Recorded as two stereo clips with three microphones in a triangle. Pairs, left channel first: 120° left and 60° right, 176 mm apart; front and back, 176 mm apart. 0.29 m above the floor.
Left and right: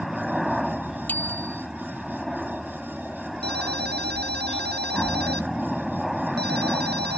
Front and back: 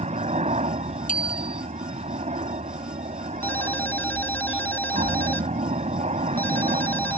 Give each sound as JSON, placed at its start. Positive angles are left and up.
{"t": 0.0, "sound": "a helicopter", "azimuth_deg": -150}
{"t": 1.1, "sound": "a bicycle bell", "azimuth_deg": 40}
{"t": 3.4, "sound": "a ringtone", "azimuth_deg": -80}